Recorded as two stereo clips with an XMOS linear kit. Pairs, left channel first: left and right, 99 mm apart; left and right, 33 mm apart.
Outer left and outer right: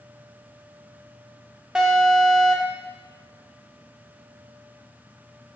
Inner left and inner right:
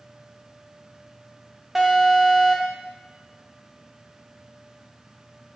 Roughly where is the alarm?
Centre.